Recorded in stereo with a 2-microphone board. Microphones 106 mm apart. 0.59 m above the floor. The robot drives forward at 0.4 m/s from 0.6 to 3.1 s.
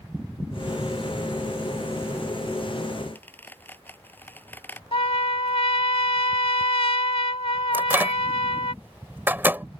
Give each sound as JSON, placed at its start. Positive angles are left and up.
{"t": 3.1, "sound": "a squeak", "side_deg": 15}
{"t": 4.9, "sound": "a trumpet", "side_deg": 65}
{"t": 7.7, "sound": "a microwave", "side_deg": -20}